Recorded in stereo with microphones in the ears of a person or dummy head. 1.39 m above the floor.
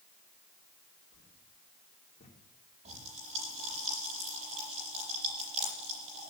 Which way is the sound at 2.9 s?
40° right (ahead or behind).